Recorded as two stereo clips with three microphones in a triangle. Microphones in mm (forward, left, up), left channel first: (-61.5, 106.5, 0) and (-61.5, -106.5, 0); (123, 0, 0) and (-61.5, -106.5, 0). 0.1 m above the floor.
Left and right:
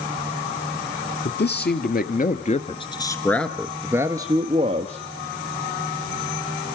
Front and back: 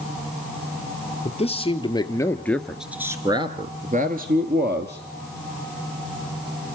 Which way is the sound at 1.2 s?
80° left.